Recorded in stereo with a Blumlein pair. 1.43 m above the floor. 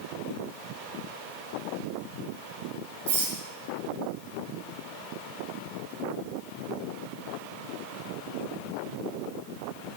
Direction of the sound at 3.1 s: 55° right.